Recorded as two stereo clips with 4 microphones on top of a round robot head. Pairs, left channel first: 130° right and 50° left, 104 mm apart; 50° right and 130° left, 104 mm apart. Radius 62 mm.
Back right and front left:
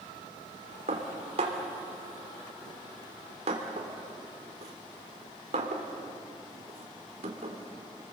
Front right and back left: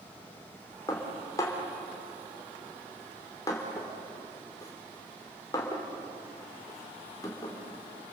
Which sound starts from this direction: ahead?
Dishes clattering, at 0.9 s.